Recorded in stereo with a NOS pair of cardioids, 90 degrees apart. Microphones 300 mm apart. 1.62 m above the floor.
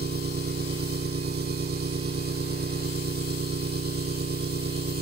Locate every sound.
0.0 s an engine running: 35° right